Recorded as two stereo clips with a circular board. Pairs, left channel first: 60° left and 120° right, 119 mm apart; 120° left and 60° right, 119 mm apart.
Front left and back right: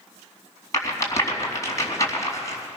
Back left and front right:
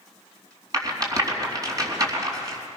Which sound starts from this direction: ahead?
A rattle, at 0.7 s.